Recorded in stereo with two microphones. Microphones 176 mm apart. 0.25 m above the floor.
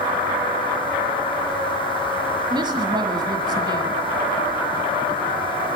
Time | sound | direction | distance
2.5 | a woman speaking | 25° right (ahead or behind) | 1.7 m